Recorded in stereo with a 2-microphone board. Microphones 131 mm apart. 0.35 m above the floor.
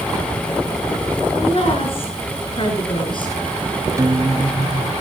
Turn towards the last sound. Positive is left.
turn(degrees=-30)  # may be behind; listen again after turning